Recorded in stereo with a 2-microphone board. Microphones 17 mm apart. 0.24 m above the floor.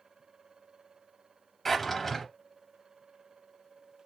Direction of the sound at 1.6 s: 10° left (ahead or behind).